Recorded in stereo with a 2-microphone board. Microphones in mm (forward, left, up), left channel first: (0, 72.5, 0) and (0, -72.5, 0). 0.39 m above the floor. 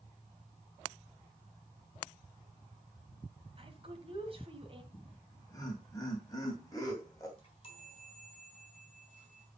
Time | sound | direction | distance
3.6 | a woman speaking | 40° right (ahead or behind) | 2 m
4.9 | laughter | 25° left (ahead or behind) | 2.5 m
7.4 | a chime | 35° left (ahead or behind) | 3.5 m